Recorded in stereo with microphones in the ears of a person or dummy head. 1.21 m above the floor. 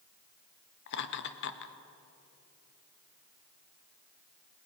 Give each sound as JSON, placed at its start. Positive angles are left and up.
{"t": 0.9, "sound": "laughter", "side_deg": 65, "distance_m": 1.5}